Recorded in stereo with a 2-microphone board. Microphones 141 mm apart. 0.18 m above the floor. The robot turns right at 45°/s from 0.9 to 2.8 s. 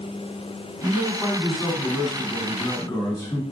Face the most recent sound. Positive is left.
turn(degrees=30)  # may be behind; listen again after turning